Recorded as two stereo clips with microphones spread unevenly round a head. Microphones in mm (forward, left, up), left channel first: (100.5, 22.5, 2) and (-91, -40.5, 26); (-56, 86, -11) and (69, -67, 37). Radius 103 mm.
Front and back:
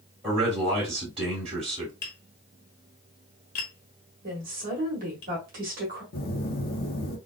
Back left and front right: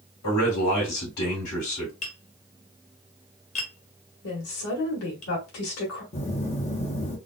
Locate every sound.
0.2 s a man speaking: 130° left, 2 m
2.0 s tapping: 70° left, 1.3 m
4.2 s a woman speaking: 150° left, 1.9 m
6.1 s a phone buzzing: 65° left, 0.9 m